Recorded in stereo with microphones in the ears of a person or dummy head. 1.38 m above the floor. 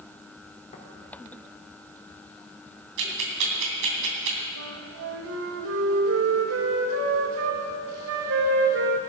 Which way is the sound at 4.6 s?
80° right.